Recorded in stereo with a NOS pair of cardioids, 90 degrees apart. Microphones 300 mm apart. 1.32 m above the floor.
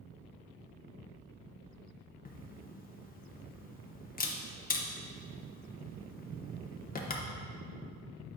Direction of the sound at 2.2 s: 30° left.